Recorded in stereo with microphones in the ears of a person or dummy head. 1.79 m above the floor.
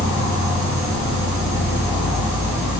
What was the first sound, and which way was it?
An insect, 30° left (ahead or behind).